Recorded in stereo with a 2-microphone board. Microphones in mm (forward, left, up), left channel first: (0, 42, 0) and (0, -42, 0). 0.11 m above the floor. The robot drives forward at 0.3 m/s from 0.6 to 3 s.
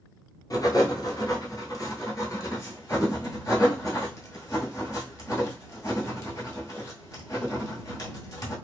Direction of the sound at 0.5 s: 45° left (ahead or behind).